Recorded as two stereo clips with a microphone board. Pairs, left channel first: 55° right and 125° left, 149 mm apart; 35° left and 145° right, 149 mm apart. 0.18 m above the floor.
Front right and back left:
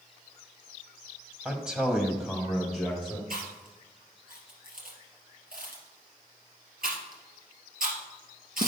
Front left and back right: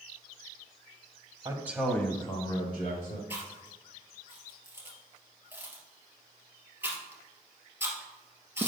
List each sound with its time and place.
1.4 s a man speaking: 160° right, 1.0 m; by 3.2 s 30° left, 1.8 m
3.3 s chewing: 135° left, 2.5 m